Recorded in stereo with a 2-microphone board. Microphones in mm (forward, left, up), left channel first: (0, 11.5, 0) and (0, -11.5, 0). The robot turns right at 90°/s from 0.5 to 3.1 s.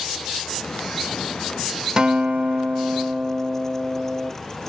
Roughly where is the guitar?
Behind right.